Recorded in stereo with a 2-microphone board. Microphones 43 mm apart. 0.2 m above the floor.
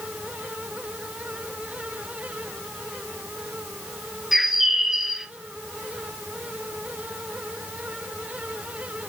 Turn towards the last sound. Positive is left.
turn(degrees=-10)  # may be behind; listen again after turning